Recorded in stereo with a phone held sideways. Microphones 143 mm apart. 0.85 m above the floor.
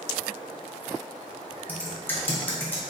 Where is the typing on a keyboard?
15° left (ahead or behind), 0.9 m.